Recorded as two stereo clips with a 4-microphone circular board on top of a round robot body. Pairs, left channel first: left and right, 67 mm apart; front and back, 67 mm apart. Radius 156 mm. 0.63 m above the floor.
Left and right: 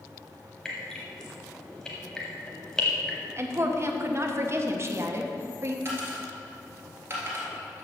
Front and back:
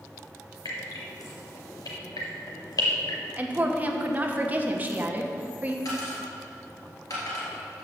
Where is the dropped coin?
35° right, 1.9 m.